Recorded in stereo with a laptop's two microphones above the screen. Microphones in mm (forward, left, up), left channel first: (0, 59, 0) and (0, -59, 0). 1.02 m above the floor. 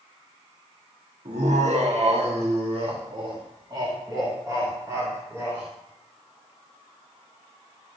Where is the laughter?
80° right, 1.5 m; by 5.6 s 20° right (ahead or behind), 2.5 m.